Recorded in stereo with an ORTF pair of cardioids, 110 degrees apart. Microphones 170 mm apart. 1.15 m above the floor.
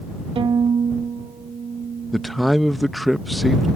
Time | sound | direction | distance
0.3 | a violin | 35° right | ?
2.1 | a man speaking | straight ahead | ?